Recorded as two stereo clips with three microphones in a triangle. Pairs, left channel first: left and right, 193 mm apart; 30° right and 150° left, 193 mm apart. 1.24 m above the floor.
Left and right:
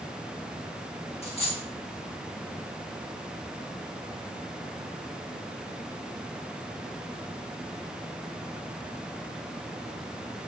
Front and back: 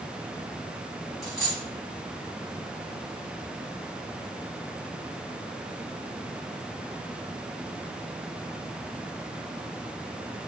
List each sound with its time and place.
1.2 s a dropped coin: 40° left, 1.2 m